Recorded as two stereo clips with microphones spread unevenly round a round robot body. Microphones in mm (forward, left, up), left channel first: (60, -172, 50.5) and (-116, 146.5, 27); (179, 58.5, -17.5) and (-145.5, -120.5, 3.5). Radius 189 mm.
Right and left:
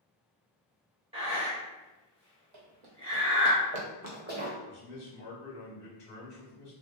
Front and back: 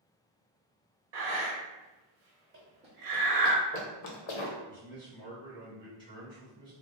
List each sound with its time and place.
1.1 s breathing: 165° right, 0.9 m
2.5 s running footsteps: 145° left, 1.1 m; by 4.6 s 45° left, 0.9 m
4.7 s a man speaking: 50° right, 1.1 m